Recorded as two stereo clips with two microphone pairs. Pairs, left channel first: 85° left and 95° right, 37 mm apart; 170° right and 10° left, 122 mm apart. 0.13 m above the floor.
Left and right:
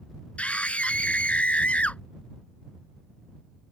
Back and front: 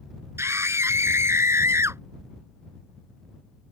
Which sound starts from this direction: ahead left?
A scream, at 0.4 s.